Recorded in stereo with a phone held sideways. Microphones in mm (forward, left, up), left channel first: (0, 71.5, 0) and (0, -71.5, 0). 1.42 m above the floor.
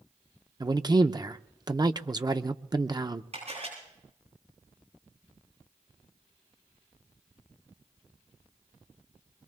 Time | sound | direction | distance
0.6 | a man speaking | 30° right (ahead or behind) | 0.6 m
3.3 | a camera shutter | 55° right (ahead or behind) | 10 m